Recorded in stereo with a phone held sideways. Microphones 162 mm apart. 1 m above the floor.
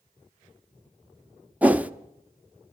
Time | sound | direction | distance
1.6 | a whoosh | 10° right (ahead or behind) | 0.6 m